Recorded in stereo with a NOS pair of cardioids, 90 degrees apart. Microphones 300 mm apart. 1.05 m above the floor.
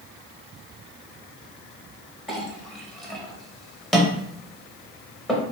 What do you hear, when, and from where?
2.3 s a clink: straight ahead, 0.8 m